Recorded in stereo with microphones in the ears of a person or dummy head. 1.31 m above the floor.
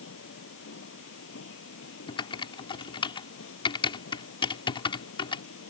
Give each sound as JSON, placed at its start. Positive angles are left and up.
{"t": 0.0, "sound": "a machine running", "side_deg": 80}
{"t": 2.1, "sound": "typing on a keyboard", "side_deg": 25}